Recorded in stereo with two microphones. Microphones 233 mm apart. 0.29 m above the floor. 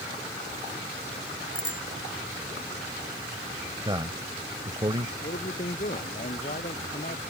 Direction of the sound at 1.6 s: 85° left.